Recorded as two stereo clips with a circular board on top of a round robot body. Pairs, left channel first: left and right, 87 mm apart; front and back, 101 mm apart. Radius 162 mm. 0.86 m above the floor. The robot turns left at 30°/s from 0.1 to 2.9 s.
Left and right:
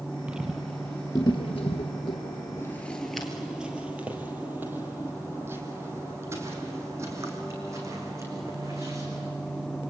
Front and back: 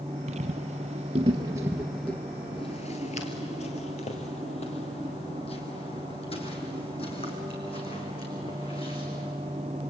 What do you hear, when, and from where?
0.3 s footsteps: 170° right, 1.6 m; by 9.3 s 35° right, 5 m